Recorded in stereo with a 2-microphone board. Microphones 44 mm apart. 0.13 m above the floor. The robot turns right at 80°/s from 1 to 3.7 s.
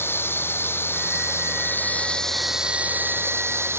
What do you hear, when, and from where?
0.0 s running water: 70° left; by 3.8 s 75° right